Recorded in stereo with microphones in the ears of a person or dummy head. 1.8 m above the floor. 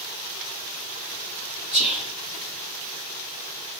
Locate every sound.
1.7 s whispering: 40° left (ahead or behind), 0.7 m